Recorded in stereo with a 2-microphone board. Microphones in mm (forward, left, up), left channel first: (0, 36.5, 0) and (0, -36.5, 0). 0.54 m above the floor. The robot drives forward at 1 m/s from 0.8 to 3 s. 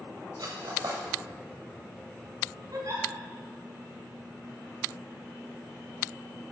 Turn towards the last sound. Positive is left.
turn(degrees=-45)  # may be behind; listen again after turning